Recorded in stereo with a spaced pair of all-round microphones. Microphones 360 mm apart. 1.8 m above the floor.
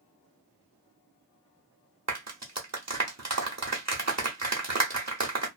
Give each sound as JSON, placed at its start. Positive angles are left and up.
{"t": 2.1, "sound": "a clap", "side_deg": -45, "distance_m": 0.9}